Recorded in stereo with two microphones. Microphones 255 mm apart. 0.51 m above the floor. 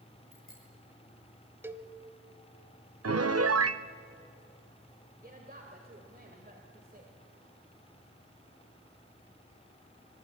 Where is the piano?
70° right (ahead or behind), 0.6 m.